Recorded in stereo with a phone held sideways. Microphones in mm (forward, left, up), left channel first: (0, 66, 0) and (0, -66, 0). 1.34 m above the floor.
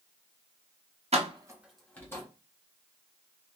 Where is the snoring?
No snoring in this recording.